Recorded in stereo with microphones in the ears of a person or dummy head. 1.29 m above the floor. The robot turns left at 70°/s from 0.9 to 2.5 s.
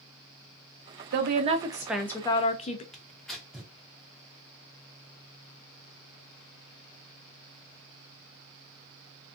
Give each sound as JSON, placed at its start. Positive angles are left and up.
{"t": 1.1, "sound": "a woman speaking", "azimuth_deg": -120, "distance_m": 0.5}
{"t": 2.9, "sound": "tearing paper", "side_deg": 0, "distance_m": 0.9}